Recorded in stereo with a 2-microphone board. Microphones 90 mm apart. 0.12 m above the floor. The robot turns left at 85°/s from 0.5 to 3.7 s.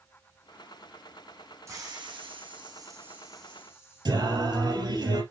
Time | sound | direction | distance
1.7 | a hiss | 35° right | 3 m
4.0 | singing | 55° right (ahead or behind) | 3.5 m